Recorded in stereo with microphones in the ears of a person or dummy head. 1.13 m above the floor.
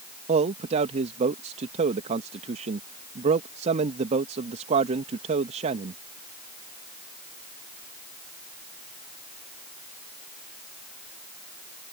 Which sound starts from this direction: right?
A man speaking, at 0.3 s.